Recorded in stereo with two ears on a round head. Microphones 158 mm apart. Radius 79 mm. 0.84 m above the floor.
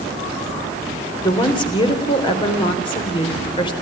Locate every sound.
1.2 s a woman speaking: 30° left (ahead or behind), 3.5 m